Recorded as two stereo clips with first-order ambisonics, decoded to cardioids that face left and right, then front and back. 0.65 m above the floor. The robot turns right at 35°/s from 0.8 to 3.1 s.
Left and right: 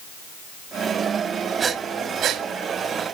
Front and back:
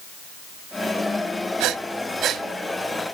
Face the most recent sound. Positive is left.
turn(degrees=-105)